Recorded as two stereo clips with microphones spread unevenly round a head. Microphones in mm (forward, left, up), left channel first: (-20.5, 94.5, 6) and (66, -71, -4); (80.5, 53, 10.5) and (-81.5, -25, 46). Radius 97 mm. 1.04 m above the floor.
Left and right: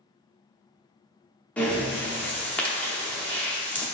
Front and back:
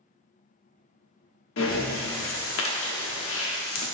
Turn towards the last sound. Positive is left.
turn(degrees=40)